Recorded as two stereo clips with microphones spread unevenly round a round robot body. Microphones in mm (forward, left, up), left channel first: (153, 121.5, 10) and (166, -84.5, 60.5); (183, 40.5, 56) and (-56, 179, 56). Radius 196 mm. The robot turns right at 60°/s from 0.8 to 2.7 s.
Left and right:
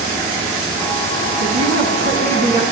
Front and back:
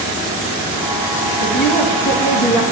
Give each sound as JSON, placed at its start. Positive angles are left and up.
{"t": 1.4, "sound": "a woman speaking", "azimuth_deg": -85, "distance_m": 3.5}